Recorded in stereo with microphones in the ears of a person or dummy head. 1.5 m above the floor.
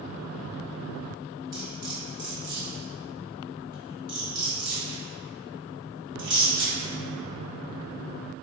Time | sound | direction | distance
1.5 | cutlery clinking | 60° right (ahead or behind) | 1.3 m